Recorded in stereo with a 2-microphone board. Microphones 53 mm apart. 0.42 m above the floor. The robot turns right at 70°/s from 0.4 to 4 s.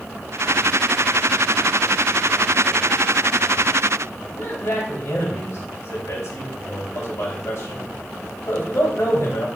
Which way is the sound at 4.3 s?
65° left (ahead or behind).